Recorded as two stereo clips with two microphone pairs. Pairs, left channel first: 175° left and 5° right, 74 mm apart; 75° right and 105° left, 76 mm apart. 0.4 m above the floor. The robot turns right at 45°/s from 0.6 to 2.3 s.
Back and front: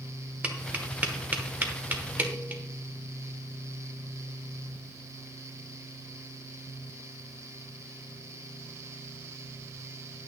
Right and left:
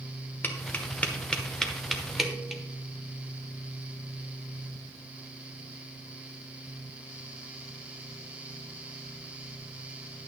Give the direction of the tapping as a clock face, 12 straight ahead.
2 o'clock.